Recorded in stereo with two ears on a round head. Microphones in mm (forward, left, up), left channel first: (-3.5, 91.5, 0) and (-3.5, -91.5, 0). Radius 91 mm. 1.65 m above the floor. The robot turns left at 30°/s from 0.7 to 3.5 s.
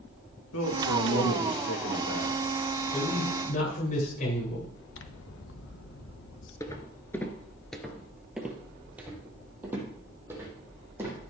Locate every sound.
0.5 s a man speaking: 95° left, 2.5 m; by 2.4 s 45° left, 2.5 m
2.9 s a man speaking: 25° left (ahead or behind), 8.5 m; by 4.7 s 40° left (ahead or behind), 8.5 m
4.9 s scissors: 60° left (ahead or behind), 1.2 m
6.6 s footsteps: 15° left (ahead or behind), 1.7 m; by 11.2 s 10° right (ahead or behind), 5.5 m